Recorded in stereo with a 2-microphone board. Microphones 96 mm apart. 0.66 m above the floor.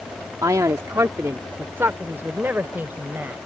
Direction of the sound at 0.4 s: 40° right (ahead or behind).